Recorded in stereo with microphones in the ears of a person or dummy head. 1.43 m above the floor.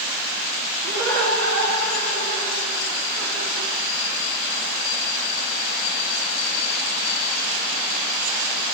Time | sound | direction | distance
0.8 | laughter | 80° right | 5 m